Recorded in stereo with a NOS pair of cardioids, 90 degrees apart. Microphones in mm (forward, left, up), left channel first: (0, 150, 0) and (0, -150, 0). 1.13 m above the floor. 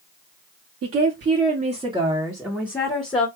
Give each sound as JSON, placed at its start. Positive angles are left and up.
{"t": 0.8, "sound": "a woman speaking", "azimuth_deg": -50, "distance_m": 1.3}